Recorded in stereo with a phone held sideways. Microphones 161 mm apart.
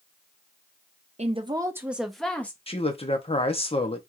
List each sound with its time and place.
1.2 s a woman speaking: 45° right (ahead or behind), 0.7 m; by 2.6 s 10° left (ahead or behind), 1.3 m
2.7 s a man speaking: 35° left (ahead or behind), 1.0 m